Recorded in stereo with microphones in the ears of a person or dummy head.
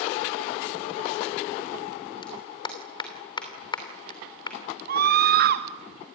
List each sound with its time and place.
2.2 s a clap: 20° left (ahead or behind), 2.5 m
4.9 s a scream: 55° right (ahead or behind), 2 m